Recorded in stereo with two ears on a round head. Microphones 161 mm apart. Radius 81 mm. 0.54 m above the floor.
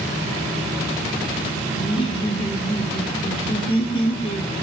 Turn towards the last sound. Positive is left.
turn(degrees=35)  # may be behind; listen again after turning